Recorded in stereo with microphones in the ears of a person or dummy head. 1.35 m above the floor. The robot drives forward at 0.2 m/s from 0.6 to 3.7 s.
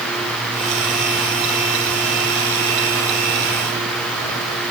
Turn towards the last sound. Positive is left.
No sound to turn to.